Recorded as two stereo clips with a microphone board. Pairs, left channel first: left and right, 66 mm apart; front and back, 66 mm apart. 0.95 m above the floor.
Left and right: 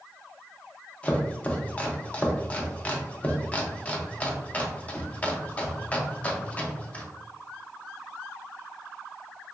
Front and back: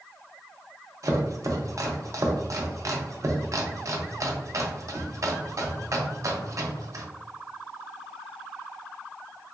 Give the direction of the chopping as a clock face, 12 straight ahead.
7 o'clock.